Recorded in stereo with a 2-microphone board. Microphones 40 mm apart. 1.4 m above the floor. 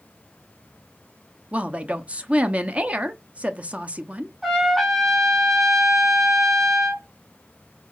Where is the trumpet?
10° right (ahead or behind), 2.5 m.